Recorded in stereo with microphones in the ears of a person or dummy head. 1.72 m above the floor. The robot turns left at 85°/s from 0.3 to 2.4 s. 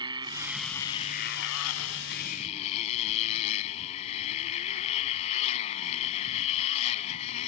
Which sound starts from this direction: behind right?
A motorcycle, at 0.0 s.